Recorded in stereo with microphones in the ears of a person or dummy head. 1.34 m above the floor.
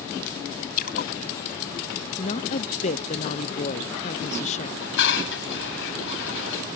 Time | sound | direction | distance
0.8 | a splash | 50° left (ahead or behind) | ?
2.2 | a woman speaking | 35° left (ahead or behind) | ?
4.8 | dishes clattering | 70° left (ahead or behind) | ?